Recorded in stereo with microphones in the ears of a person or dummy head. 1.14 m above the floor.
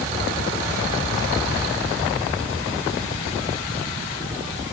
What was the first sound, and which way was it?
Only background noise.